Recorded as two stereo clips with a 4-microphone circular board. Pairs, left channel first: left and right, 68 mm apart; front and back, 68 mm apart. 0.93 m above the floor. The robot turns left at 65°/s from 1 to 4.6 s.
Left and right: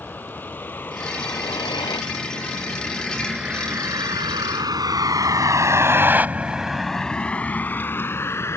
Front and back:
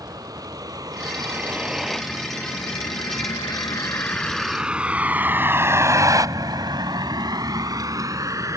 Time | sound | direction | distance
0.0 | a vehicle | 155° left | ?